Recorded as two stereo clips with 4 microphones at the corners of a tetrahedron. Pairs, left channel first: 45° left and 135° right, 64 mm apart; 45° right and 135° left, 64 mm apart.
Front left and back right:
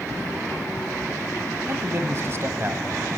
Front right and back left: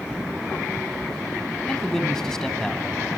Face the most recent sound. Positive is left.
turn(degrees=-125)